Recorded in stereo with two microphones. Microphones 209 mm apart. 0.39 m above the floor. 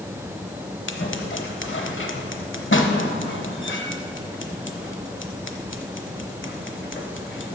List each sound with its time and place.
0.9 s scissors: 70° left (ahead or behind), 0.9 m